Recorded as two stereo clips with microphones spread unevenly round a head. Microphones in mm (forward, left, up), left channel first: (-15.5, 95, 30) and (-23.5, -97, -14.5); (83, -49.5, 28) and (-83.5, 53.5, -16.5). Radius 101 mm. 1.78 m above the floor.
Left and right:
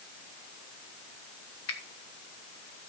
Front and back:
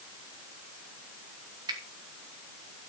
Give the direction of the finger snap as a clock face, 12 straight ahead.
9 o'clock.